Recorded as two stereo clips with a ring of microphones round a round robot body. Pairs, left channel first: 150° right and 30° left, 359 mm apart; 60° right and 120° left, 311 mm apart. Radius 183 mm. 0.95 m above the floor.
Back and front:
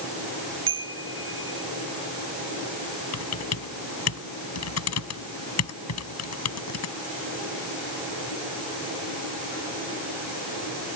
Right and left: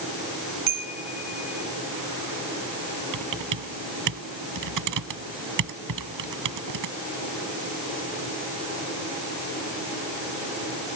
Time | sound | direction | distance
0.7 | a chime | 90° left | ?
3.1 | typing on a keyboard | 160° left | ?